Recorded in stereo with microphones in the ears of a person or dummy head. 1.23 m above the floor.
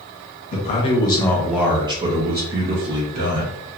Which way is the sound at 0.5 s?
40° left (ahead or behind).